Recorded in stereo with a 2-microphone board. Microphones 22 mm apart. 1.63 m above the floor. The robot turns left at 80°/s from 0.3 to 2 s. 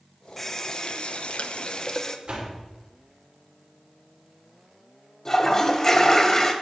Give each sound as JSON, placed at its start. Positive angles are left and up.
{"t": 0.4, "sound": "a running tap", "azimuth_deg": 165, "distance_m": 0.9}
{"t": 2.3, "sound": "a door slam", "side_deg": -75, "distance_m": 3.5}
{"t": 5.2, "sound": "a toilet flushing", "side_deg": 20, "distance_m": 1.5}